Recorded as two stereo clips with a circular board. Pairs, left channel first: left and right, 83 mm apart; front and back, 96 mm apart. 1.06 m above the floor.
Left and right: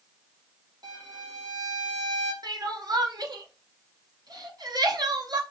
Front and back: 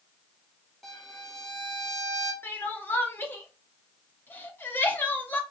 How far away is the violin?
About 1.1 m.